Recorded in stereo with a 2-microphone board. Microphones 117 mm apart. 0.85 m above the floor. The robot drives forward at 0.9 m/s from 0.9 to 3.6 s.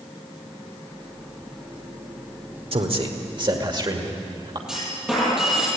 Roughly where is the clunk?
Centre.